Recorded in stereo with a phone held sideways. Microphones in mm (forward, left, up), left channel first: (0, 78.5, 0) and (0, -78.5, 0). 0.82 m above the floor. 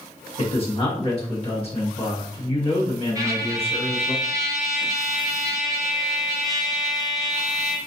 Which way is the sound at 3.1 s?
20° right (ahead or behind).